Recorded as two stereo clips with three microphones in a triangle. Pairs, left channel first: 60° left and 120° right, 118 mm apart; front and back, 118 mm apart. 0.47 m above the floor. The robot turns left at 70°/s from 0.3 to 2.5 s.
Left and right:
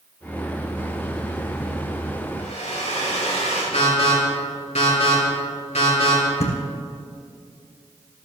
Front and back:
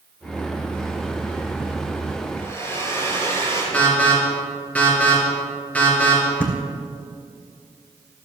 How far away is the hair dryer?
About 7 m.